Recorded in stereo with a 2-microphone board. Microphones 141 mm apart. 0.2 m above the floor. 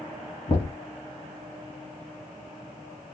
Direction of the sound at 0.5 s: 40° left (ahead or behind).